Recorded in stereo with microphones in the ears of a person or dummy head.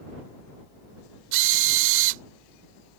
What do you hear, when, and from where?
1.3 s a drill: 80° right